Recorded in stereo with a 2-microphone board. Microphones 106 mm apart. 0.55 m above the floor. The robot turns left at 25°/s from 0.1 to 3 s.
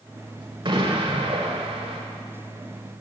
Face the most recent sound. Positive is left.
turn(degrees=-120)